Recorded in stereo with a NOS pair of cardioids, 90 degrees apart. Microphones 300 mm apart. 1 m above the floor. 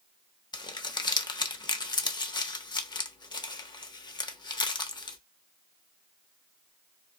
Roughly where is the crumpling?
Ahead.